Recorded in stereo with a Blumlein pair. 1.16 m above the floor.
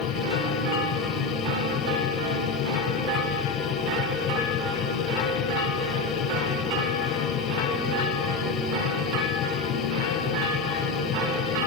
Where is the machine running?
35° left.